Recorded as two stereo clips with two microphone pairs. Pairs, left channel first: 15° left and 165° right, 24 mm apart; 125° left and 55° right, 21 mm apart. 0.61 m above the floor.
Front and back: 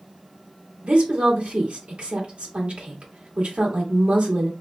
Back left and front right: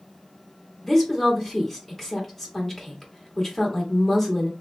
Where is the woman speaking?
155° right, 1.3 m.